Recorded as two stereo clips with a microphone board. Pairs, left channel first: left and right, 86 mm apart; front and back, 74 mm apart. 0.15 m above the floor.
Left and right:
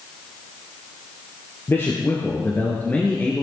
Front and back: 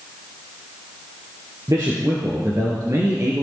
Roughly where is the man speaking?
Behind left.